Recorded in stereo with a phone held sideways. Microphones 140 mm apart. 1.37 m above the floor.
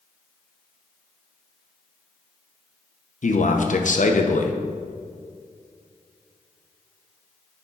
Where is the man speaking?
65° left (ahead or behind), 0.8 m.